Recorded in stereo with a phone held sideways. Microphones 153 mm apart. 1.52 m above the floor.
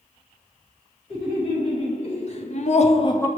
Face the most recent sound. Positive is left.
turn(degrees=15)  # may be behind; listen again after turning